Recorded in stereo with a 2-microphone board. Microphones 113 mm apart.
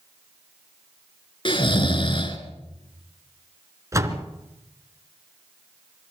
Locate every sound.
1.4 s snoring: 45° left (ahead or behind), 2.5 m
3.9 s a door slam: 25° right (ahead or behind), 2 m